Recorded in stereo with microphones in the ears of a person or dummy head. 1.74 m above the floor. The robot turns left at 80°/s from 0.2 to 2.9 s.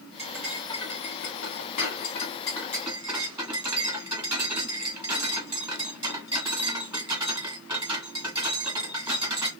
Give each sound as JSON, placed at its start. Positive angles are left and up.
{"t": 0.2, "sound": "cutlery clinking", "azimuth_deg": -155, "distance_m": 1.7}